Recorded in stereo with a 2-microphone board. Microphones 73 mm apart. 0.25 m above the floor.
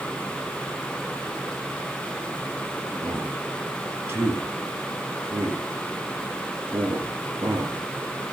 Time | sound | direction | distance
3.0 | a man speaking | 35° right (ahead or behind) | 3.5 m